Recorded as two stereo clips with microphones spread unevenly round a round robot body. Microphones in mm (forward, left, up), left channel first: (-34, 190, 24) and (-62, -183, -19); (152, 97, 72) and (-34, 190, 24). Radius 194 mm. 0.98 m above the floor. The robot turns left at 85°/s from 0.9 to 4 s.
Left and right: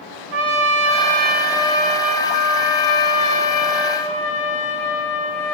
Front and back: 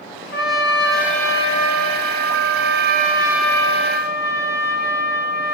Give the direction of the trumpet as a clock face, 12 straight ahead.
3 o'clock.